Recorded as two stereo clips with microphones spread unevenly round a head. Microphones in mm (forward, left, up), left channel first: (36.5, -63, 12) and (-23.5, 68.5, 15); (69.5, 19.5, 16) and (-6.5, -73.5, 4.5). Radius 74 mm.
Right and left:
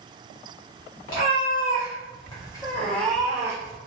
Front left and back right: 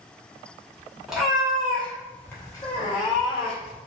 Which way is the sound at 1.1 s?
40° right.